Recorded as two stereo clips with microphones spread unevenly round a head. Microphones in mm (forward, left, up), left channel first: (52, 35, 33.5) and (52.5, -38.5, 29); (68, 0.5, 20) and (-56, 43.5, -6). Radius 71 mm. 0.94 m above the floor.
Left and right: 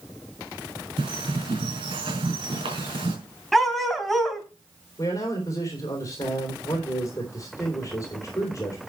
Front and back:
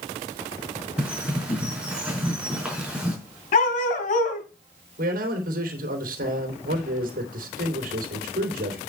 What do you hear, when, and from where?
1.0 s a bird: 115° right, 4.5 m
3.5 s a dog barking: 5° left, 2.5 m
5.0 s a man speaking: 150° left, 3 m